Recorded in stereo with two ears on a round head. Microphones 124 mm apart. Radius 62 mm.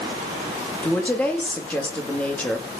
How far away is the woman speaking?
About 2.5 m.